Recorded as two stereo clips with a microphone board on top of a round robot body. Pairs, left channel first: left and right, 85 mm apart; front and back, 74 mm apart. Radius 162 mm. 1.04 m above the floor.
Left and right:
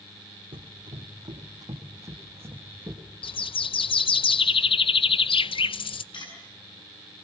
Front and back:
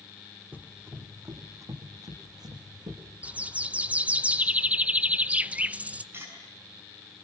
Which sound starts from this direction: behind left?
Cutlery clinking, at 6.1 s.